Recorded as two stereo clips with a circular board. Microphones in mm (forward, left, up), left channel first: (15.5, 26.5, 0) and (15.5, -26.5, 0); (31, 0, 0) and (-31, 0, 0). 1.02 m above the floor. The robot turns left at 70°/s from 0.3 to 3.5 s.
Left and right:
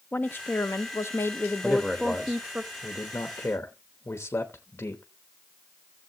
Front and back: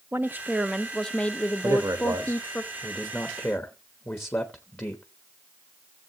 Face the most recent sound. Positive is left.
turn(degrees=50)